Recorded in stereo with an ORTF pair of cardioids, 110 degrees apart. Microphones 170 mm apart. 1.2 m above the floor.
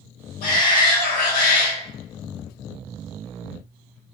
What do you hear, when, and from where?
0.4 s a shout: 60° left, 1.0 m